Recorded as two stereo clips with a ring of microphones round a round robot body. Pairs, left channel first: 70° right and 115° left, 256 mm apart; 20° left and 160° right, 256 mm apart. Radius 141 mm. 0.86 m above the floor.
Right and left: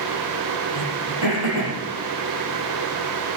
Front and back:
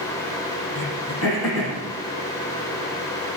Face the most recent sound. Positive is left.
turn(degrees=90)